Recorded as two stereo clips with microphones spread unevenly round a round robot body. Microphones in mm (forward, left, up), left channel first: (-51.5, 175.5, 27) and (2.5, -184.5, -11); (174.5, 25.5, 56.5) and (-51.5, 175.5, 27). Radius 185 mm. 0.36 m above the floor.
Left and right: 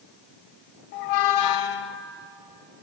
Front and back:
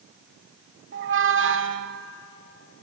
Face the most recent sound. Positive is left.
turn(degrees=95)